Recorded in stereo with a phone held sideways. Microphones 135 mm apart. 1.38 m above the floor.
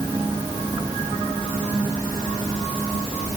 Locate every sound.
Only background noise.